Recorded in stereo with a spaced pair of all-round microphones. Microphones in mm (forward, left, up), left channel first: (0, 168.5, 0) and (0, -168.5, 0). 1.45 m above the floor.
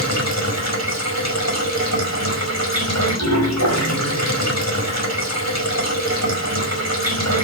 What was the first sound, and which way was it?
Running water, 45° left (ahead or behind).